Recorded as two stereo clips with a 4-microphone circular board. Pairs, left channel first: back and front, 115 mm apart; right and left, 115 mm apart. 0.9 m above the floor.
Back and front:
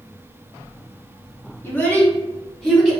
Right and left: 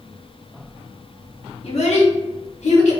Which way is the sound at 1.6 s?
115° right.